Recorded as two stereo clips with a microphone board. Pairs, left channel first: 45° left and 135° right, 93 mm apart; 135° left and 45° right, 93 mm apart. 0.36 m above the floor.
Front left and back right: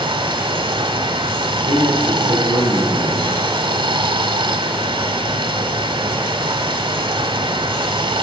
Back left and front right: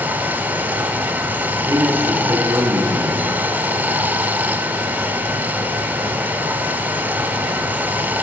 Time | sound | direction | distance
0.0 | running water | 115° right | 1.1 m
1.5 | a man speaking | straight ahead | 4 m